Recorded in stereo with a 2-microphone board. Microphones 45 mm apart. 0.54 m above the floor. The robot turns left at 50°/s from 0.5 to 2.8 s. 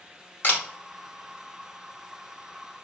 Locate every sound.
0.4 s a camera shutter: 40° left (ahead or behind), 0.8 m; by 0.6 s 45° left (ahead or behind), 0.8 m